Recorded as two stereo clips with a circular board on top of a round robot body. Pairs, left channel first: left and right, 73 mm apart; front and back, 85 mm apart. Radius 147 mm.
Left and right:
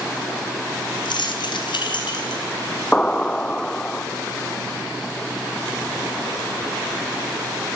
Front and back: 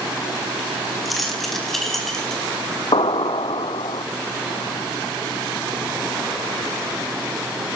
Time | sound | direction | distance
1.1 | keys jangling | 90° left | 4 m
2.9 | an explosion | 10° left | 1.0 m